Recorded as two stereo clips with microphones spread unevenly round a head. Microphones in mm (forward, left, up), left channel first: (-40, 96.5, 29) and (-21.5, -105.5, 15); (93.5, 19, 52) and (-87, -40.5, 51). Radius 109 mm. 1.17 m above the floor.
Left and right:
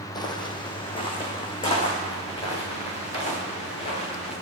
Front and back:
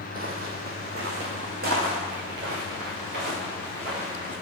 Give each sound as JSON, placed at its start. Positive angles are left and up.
{"t": 0.1, "sound": "footsteps", "azimuth_deg": 155, "distance_m": 1.9}